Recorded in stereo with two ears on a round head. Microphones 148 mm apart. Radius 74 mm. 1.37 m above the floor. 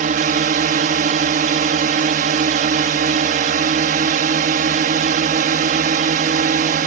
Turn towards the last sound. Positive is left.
turn(degrees=-50)  # may be behind; listen again after turning